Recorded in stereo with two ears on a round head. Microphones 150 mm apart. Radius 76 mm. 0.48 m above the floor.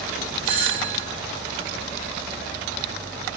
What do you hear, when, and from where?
0.4 s a doorbell: 35° right (ahead or behind), 5 m